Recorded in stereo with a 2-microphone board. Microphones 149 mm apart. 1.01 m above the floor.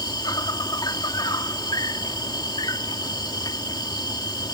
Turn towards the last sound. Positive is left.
turn(degrees=30)  # may be behind; listen again after turning